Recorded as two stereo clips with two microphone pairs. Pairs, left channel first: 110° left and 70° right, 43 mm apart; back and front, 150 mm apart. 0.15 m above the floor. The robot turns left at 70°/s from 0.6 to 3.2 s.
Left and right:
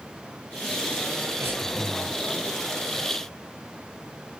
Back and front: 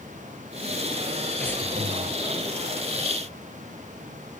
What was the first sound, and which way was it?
Breathing, 100° right.